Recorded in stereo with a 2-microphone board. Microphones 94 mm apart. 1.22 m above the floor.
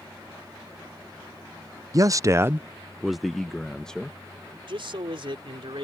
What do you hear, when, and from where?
1.9 s a man speaking: 35° right (ahead or behind); by 4.2 s 10° left (ahead or behind)
4.7 s a man speaking: 65° right (ahead or behind)